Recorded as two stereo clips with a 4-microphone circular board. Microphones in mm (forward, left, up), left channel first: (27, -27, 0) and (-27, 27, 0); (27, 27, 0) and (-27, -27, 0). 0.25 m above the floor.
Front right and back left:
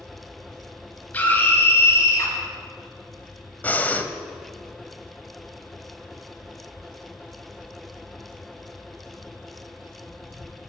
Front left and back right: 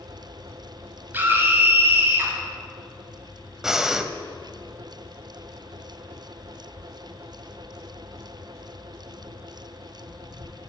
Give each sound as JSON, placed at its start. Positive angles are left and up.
{"t": 1.1, "sound": "a scream", "azimuth_deg": -95, "distance_m": 1.8}
{"t": 3.6, "sound": "breathing", "azimuth_deg": -60, "distance_m": 0.6}